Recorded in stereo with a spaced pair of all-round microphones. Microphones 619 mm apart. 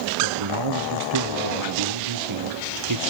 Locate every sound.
0.2 s a man speaking: 45° right (ahead or behind), 0.9 m